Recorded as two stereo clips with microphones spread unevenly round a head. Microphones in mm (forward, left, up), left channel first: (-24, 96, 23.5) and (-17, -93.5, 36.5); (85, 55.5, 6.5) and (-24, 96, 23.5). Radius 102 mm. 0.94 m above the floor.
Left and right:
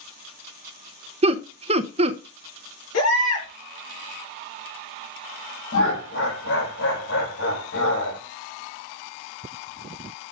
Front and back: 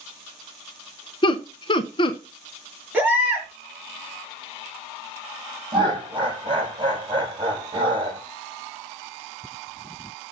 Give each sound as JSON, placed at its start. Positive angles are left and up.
{"t": 1.2, "sound": "laughter", "azimuth_deg": -35, "distance_m": 0.8}
{"t": 2.9, "sound": "a baby crying", "azimuth_deg": 85, "distance_m": 5.5}
{"t": 5.7, "sound": "laughter", "azimuth_deg": 110, "distance_m": 5.0}